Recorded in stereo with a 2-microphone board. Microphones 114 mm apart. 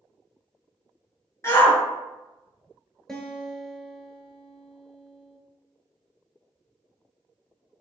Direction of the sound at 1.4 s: 25° left (ahead or behind).